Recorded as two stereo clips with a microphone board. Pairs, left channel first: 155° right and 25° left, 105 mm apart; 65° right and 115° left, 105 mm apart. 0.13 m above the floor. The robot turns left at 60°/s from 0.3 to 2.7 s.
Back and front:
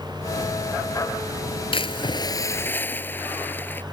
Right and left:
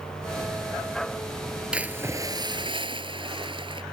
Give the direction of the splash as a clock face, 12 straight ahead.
6 o'clock.